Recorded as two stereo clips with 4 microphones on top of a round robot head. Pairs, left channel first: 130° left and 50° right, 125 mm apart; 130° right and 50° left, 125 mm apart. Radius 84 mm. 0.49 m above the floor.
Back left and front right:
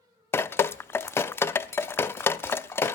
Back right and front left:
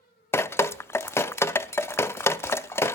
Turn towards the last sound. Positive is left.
turn(degrees=180)